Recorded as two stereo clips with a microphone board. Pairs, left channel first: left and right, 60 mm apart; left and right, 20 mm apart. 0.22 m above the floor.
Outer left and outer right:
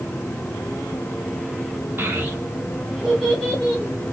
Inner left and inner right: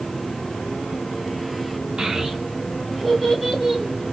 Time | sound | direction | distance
2.0 | a child speaking | 35° right (ahead or behind) | 1.2 m